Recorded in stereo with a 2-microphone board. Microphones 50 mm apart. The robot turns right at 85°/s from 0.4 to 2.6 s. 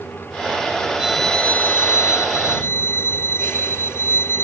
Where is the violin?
15° right; by 4.5 s 120° left.